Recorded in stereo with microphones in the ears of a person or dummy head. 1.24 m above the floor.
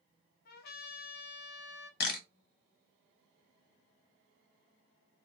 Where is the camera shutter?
60° left (ahead or behind), 0.8 m.